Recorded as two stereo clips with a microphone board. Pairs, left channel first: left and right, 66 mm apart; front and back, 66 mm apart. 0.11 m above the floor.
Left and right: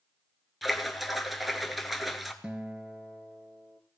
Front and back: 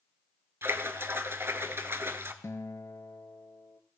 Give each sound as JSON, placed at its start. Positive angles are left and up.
{"t": 0.6, "sound": "a splash", "azimuth_deg": 180, "distance_m": 0.7}
{"t": 2.4, "sound": "a guitar", "azimuth_deg": -20, "distance_m": 0.6}